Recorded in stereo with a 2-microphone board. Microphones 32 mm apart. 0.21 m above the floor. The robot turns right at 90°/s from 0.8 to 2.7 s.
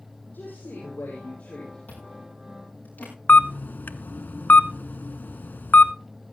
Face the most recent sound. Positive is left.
turn(degrees=65)  # may be behind; listen again after turning